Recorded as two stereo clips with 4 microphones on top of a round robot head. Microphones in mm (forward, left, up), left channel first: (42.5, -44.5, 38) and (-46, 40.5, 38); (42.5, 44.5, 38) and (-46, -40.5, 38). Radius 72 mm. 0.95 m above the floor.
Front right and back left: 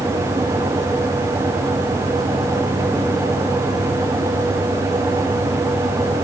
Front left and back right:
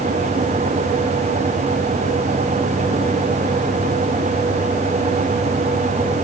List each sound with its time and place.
Only background noise.